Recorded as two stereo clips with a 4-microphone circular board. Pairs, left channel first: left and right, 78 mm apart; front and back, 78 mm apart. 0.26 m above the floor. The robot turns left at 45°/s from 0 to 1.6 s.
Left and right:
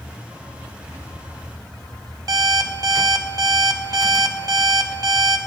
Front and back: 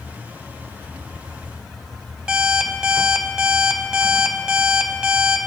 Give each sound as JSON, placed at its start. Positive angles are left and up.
{"t": 2.3, "sound": "an alarm clock", "azimuth_deg": -100, "distance_m": 0.5}